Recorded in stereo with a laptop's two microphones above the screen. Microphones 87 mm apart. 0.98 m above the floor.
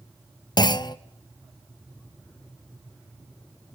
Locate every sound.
0.6 s a clunk: 55° left (ahead or behind), 0.6 m